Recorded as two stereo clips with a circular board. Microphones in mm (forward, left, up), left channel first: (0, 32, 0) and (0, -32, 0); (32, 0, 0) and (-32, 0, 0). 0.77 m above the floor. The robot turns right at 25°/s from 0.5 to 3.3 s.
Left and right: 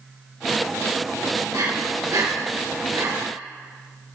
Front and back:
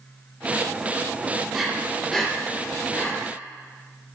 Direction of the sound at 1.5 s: 100° right.